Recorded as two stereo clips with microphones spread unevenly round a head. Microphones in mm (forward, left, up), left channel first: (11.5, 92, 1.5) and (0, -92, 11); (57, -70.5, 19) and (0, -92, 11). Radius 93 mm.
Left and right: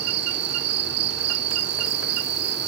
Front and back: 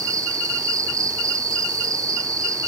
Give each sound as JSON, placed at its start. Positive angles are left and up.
{"t": 0.0, "sound": "an insect", "azimuth_deg": -130, "distance_m": 1.0}